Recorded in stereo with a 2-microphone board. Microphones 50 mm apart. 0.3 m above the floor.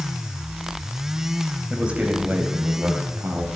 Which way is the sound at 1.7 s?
15° right (ahead or behind).